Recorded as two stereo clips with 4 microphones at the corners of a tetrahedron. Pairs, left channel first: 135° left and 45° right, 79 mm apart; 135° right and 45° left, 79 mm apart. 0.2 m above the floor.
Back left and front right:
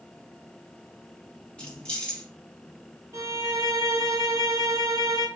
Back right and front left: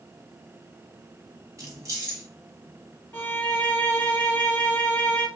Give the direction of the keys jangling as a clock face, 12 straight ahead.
10 o'clock.